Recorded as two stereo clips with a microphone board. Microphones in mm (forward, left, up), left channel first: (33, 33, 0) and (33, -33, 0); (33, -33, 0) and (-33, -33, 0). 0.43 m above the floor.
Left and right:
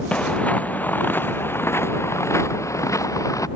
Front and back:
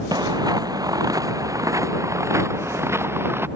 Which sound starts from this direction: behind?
Footsteps, at 0.1 s.